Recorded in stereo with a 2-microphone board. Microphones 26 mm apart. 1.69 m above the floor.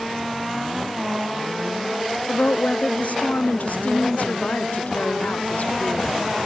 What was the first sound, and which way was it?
A woman speaking, 70° left (ahead or behind).